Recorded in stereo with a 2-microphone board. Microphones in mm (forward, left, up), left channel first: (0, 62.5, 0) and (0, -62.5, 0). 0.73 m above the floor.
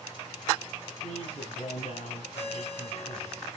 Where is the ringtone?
60° left (ahead or behind), 3.5 m.